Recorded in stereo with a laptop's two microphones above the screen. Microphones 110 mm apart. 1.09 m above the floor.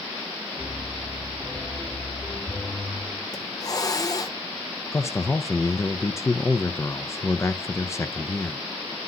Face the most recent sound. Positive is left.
turn(degrees=25)  # may be behind; listen again after turning